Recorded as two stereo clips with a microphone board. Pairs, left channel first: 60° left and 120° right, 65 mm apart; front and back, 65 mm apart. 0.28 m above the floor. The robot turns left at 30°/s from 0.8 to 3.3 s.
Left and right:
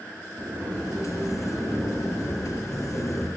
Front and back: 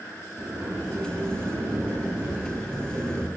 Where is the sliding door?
170° right, 2.5 m; by 3.3 s 120° left, 2.5 m.